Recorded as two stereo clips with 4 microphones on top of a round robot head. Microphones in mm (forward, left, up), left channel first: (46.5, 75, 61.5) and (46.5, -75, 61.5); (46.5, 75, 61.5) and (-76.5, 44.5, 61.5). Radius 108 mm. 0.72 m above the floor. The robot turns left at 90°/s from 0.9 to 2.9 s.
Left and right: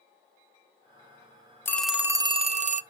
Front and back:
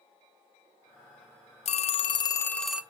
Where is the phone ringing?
20° left, 0.6 m; by 2.8 s 85° right, 0.6 m.